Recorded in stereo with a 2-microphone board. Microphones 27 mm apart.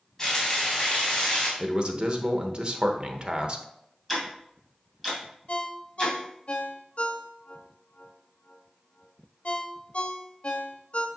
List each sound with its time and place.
0.2 s frying: 20° left (ahead or behind), 3.5 m
1.6 s a man speaking: 35° right (ahead or behind), 0.9 m
4.1 s ticking: centre (ahead or behind), 2.5 m
5.5 s a ringtone: 55° left (ahead or behind), 0.7 m